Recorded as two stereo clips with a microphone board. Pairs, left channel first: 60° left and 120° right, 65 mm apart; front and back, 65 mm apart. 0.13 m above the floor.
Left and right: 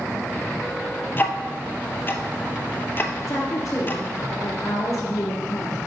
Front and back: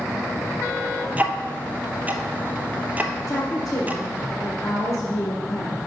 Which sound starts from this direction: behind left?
Ticking, at 1.2 s.